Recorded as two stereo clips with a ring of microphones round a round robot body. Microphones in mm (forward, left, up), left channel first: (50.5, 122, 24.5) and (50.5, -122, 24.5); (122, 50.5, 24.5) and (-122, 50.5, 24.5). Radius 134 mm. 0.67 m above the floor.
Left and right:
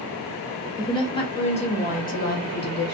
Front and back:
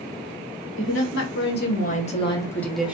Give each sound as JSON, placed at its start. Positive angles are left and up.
{"t": 0.8, "sound": "a woman speaking", "azimuth_deg": 20, "distance_m": 1.8}